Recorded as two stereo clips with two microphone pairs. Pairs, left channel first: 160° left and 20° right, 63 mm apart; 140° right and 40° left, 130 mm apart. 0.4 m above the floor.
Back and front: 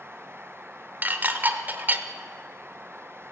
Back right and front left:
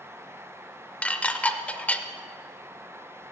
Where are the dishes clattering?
65° right, 0.6 m.